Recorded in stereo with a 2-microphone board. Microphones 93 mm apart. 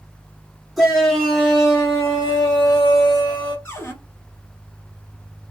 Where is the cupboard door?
30° left (ahead or behind), 2 m.